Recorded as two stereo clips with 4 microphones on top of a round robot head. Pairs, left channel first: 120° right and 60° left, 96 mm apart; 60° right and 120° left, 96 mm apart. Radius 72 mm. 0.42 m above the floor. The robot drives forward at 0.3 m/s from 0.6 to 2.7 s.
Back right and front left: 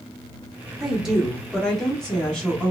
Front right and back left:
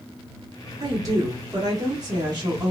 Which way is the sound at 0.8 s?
135° left.